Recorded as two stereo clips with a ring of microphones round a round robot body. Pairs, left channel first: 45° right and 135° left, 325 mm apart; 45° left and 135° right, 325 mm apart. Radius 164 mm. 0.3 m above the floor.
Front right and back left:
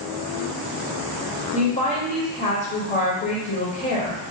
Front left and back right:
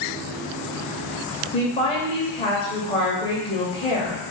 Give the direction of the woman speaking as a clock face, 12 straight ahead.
12 o'clock.